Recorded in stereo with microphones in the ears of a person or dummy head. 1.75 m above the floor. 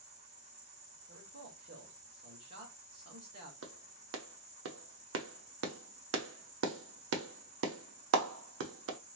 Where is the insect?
40° right (ahead or behind), 1.4 m.